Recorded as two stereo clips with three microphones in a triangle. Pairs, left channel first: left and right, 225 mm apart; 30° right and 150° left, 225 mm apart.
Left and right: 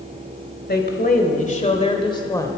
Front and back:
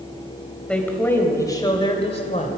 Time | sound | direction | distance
0.7 | a woman speaking | 55° left | 2 m